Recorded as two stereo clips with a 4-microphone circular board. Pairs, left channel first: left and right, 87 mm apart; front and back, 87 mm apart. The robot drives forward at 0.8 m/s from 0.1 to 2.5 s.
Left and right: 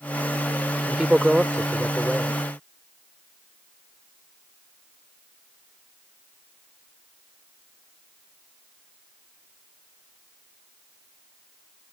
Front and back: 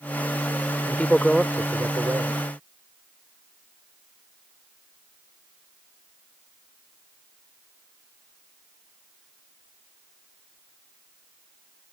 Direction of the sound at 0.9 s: 25° right.